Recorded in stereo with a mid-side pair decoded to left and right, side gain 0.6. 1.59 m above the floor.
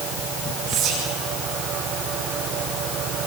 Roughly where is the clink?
No clink in this recording.